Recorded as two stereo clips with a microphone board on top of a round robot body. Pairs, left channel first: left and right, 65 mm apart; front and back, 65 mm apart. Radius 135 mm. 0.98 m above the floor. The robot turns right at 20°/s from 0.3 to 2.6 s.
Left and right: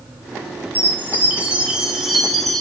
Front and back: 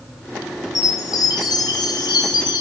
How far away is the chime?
About 1.4 m.